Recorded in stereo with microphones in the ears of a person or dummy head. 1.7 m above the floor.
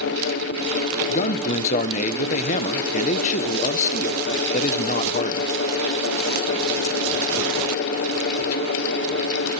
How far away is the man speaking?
About 1.2 m.